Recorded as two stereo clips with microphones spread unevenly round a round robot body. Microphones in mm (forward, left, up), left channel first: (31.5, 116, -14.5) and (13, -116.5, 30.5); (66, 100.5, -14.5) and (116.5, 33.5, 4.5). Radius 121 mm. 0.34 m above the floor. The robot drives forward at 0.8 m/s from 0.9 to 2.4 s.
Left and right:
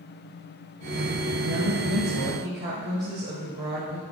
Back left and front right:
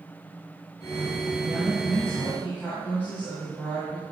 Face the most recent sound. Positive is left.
turn(degrees=-145)